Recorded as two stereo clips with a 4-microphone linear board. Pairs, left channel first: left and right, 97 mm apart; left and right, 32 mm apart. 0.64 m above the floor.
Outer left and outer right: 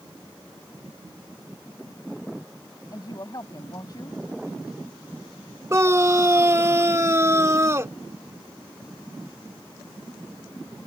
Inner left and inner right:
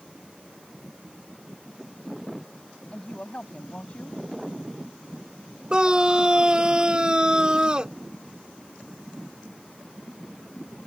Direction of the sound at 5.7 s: 30° right (ahead or behind).